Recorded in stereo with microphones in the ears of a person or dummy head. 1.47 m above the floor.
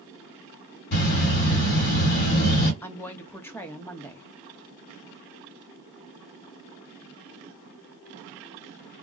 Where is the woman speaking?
10° left (ahead or behind), 0.7 m.